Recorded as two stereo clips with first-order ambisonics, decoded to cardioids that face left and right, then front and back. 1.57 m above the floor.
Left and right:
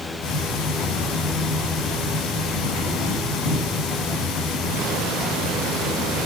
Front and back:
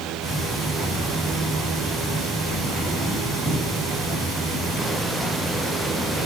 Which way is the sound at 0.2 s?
80° left.